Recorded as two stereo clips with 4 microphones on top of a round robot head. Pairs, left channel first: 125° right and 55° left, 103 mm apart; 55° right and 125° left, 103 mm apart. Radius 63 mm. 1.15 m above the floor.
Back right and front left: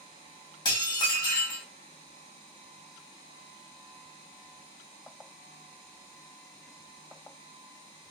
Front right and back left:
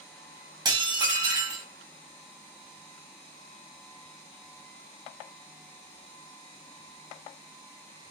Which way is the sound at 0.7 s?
Straight behind.